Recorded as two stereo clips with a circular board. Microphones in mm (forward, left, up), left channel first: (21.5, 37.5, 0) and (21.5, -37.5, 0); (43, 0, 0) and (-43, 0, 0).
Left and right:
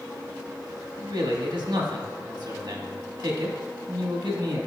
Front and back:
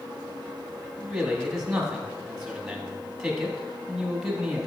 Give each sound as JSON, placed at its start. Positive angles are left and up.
{"t": 1.0, "sound": "a man speaking", "azimuth_deg": -95, "distance_m": 1.4}